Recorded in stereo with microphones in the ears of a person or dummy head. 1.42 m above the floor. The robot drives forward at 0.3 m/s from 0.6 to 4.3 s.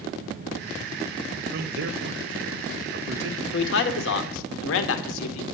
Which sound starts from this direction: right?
A man speaking, at 1.5 s.